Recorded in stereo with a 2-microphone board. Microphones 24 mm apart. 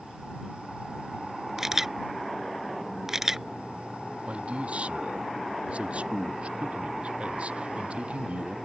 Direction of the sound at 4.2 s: 60° right (ahead or behind).